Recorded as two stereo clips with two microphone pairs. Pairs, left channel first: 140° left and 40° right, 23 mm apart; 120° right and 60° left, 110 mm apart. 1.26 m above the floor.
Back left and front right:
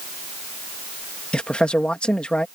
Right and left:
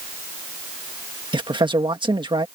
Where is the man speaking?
105° left.